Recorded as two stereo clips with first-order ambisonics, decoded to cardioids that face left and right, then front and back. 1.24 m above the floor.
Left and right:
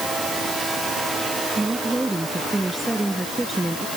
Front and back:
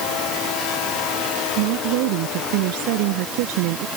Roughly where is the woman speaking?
Behind.